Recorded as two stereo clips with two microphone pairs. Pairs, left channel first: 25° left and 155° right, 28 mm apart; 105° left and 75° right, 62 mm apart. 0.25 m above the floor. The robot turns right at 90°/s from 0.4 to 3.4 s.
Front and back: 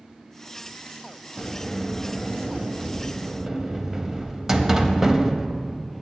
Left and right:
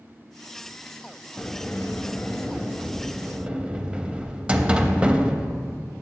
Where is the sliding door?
65° left, 0.5 m; by 5.9 s 115° right, 0.5 m.